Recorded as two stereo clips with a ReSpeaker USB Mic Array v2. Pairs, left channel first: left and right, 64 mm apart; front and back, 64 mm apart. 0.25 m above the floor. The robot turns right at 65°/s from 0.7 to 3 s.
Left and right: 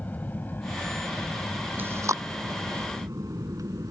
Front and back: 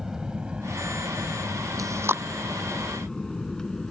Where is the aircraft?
110° left; by 3.9 s 80° right.